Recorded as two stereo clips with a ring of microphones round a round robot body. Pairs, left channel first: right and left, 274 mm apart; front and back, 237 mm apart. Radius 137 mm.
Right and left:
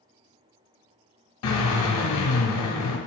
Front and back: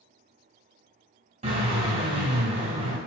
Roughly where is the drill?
Behind right.